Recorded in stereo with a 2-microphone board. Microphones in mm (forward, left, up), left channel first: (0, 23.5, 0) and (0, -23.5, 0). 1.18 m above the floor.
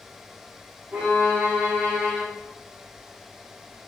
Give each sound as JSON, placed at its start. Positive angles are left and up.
{"t": 0.9, "sound": "a violin", "side_deg": -35, "distance_m": 4.5}